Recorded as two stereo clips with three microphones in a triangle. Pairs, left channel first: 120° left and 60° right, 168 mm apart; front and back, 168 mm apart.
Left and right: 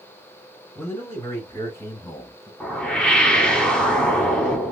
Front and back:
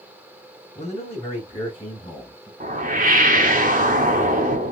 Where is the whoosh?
155° right, 0.9 m.